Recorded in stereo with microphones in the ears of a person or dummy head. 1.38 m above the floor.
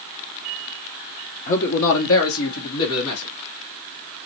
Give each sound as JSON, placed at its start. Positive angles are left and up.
{"t": 1.5, "sound": "a man speaking", "side_deg": 45, "distance_m": 0.7}